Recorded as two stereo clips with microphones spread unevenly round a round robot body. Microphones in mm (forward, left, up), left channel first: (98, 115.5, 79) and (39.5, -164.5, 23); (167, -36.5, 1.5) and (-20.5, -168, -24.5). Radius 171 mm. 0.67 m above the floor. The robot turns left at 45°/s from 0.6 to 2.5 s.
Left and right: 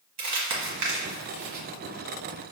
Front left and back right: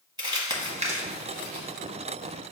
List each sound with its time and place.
0.2 s crumpling: 70° right, 1.2 m; by 1.7 s 115° right, 1.2 m